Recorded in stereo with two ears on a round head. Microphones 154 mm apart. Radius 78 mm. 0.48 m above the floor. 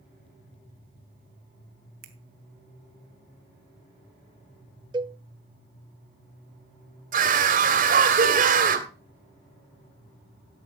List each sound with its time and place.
2.0 s a finger snap: 60° right (ahead or behind), 2 m
4.9 s a cowbell: 25° right (ahead or behind), 0.6 m
7.1 s a scream: 55° right (ahead or behind), 2.5 m